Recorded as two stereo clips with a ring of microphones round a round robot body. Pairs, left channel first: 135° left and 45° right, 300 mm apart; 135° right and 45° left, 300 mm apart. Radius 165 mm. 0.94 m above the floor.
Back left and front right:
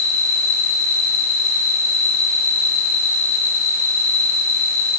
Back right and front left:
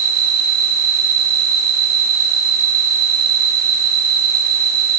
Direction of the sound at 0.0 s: 65° left.